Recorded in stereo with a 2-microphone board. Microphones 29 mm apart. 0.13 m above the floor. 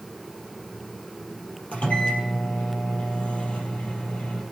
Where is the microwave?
50° left (ahead or behind), 3.5 m.